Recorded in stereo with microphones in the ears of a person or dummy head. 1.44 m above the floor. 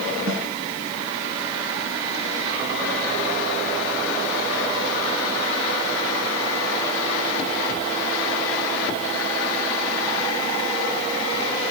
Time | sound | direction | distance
0.3 | a snare drum | 25° right (ahead or behind) | 2 m